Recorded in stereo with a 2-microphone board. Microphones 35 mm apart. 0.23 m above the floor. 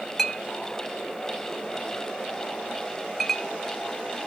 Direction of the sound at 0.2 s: 5° left (ahead or behind).